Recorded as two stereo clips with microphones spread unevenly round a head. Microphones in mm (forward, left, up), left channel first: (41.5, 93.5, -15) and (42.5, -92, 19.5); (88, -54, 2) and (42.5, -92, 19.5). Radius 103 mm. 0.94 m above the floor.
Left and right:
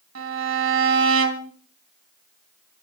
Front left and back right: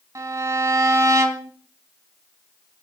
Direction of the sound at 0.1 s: 120° right.